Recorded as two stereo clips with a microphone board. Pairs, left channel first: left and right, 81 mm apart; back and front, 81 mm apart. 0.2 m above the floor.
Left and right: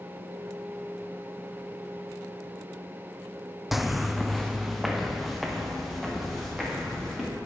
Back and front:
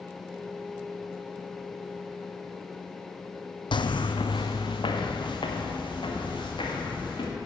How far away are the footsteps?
About 0.6 m.